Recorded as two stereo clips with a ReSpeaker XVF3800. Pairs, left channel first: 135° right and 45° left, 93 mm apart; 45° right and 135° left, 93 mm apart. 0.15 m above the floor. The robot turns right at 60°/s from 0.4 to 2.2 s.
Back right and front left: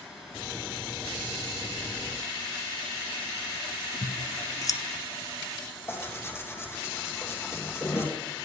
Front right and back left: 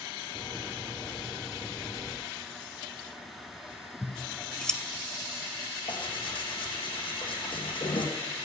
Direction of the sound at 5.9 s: 75° right.